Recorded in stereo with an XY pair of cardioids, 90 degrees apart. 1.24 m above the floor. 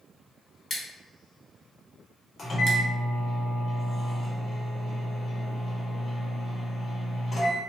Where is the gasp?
No gasp in this recording.